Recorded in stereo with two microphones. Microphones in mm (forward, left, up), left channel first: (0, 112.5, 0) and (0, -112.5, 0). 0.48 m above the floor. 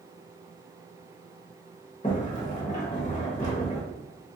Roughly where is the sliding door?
Left.